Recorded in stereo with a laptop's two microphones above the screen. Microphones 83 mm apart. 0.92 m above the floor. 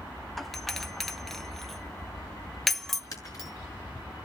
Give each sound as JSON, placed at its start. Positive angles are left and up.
{"t": 0.4, "sound": "a doorbell", "side_deg": 0, "distance_m": 0.8}
{"t": 3.1, "sound": "breaking glass", "side_deg": 45, "distance_m": 6.0}